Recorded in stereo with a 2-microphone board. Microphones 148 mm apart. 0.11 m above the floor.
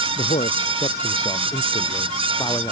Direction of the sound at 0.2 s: 55° left (ahead or behind).